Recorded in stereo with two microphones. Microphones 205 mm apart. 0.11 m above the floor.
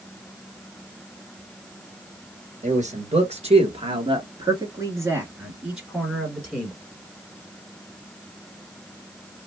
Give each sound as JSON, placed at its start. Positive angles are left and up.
{"t": 2.6, "sound": "a man speaking", "side_deg": -35, "distance_m": 1.9}